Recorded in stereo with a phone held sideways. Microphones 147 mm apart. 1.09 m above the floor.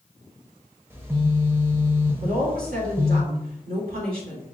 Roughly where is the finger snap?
I don't hear a finger snap.